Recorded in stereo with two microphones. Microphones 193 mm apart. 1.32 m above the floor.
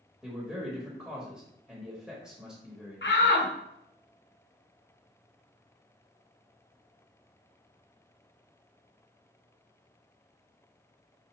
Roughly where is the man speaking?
Centre.